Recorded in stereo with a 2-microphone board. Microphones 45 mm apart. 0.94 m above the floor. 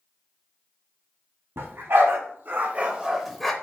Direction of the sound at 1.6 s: 65° right (ahead or behind).